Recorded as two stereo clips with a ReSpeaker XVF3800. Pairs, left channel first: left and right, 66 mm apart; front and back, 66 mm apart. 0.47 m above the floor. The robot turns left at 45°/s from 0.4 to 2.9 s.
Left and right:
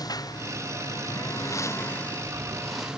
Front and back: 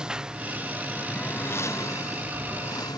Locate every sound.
0.0 s a lawn mower: 105° left; by 3.0 s 10° right